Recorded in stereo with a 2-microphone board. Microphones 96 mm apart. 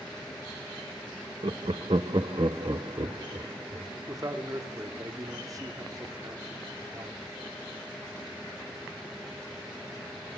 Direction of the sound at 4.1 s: 35° right (ahead or behind).